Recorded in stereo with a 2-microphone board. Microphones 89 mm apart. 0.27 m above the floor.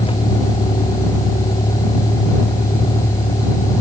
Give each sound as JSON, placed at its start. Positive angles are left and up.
{"t": 0.0, "sound": "a vehicle", "side_deg": 90}